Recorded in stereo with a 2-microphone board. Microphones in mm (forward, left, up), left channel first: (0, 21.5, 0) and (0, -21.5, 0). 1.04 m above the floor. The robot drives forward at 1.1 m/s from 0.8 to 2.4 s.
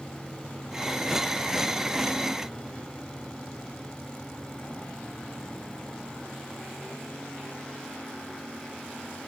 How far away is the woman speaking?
I don't hear a woman speaking.